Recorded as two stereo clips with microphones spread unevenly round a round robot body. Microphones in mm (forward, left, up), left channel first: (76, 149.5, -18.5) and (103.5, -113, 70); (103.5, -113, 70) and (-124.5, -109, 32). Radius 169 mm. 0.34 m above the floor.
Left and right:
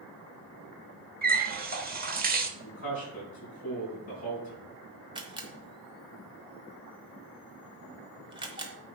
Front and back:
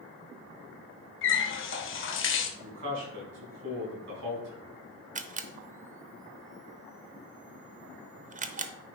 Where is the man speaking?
150° left, 4 m.